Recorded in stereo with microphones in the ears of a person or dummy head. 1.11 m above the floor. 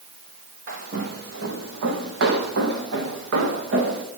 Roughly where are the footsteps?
Right.